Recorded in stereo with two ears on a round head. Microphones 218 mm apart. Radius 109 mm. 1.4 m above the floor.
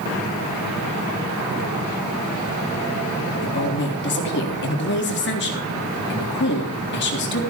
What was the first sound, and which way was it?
A woman speaking, 50° left (ahead or behind).